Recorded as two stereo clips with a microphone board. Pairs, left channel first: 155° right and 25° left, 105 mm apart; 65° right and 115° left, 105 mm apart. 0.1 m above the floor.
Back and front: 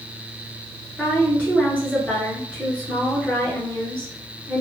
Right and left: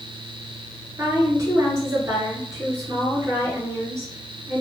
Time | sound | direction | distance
1.0 | a woman speaking | 135° left | 1.3 m